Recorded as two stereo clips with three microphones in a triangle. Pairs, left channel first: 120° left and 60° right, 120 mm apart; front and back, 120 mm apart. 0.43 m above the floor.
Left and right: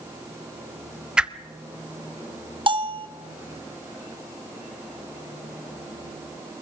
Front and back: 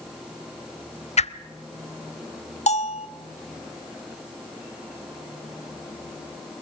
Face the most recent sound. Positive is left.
turn(degrees=-15)